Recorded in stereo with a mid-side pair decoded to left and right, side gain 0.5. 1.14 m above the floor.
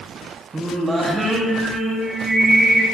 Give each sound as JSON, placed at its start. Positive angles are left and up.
{"t": 0.5, "sound": "singing", "azimuth_deg": -30, "distance_m": 1.2}